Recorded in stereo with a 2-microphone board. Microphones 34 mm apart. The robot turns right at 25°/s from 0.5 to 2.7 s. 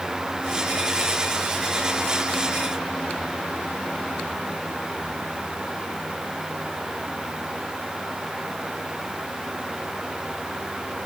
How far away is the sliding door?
No sliding door in this recording.